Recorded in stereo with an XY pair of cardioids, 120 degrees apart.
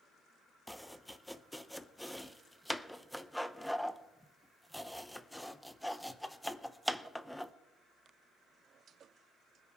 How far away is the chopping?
About 0.6 m.